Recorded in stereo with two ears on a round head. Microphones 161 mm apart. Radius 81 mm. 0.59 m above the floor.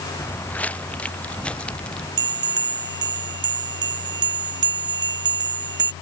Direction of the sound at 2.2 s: 60° right (ahead or behind).